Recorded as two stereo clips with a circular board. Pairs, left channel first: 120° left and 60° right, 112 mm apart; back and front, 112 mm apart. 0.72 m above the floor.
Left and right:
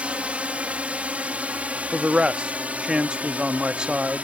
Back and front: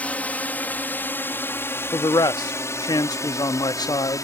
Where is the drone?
120° right; by 4.2 s 135° right.